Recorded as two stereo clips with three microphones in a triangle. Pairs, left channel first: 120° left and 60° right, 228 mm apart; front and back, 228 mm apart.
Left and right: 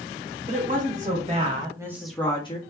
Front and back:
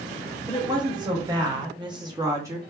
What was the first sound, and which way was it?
A woman speaking, 110° right.